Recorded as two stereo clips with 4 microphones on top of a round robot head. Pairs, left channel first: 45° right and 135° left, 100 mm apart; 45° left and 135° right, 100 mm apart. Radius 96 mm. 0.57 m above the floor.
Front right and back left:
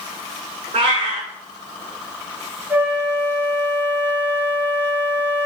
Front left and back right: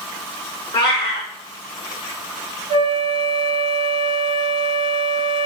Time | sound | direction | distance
0.7 | a cat meowing | 95° left | 0.8 m
2.7 | a flute | 155° right | 0.7 m